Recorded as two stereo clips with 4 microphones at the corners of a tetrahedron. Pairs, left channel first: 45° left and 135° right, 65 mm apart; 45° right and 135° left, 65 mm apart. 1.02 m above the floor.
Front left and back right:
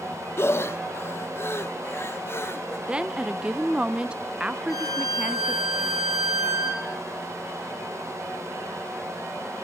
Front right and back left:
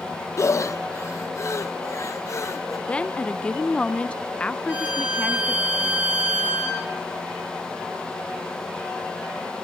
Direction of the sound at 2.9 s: 85° right.